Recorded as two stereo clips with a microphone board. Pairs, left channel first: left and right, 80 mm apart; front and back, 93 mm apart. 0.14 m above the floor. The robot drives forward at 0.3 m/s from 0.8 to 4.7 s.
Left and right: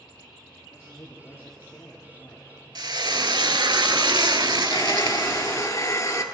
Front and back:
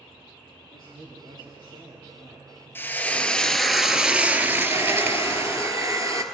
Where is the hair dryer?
130° left, 1.2 m.